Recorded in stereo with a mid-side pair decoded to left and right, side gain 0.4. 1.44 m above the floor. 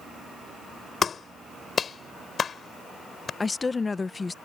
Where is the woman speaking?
35° left.